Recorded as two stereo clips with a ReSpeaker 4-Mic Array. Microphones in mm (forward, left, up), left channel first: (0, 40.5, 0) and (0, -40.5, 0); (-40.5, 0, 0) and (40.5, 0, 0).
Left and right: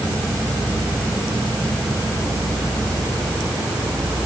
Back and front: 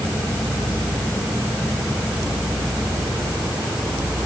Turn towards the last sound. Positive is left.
No sound to turn to.